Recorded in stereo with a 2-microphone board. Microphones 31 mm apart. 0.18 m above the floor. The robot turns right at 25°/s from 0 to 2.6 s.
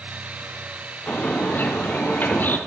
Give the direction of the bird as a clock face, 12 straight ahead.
10 o'clock.